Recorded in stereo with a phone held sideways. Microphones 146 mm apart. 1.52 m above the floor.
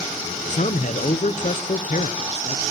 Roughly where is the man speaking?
Left.